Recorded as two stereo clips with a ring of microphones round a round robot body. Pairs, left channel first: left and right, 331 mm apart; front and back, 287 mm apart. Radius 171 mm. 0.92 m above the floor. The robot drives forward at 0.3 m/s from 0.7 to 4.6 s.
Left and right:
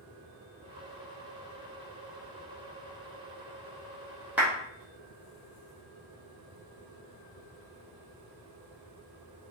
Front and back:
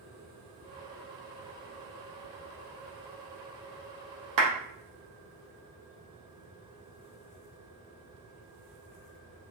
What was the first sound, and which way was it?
A clap, 175° right.